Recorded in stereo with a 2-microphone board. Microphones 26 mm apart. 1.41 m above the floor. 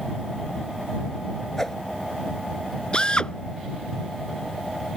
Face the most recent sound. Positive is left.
turn(degrees=35)  # may be behind; listen again after turning